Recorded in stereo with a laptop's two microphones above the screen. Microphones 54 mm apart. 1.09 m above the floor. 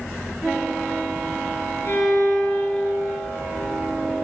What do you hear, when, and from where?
1.9 s a violin: 55° left (ahead or behind), 1.7 m